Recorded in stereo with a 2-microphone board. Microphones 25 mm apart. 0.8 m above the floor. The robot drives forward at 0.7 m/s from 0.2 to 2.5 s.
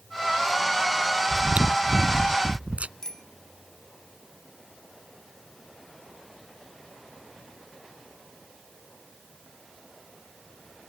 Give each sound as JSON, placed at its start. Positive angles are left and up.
{"t": 1.3, "sound": "chewing", "side_deg": -70}
{"t": 3.0, "sound": "a bicycle bell", "side_deg": 25}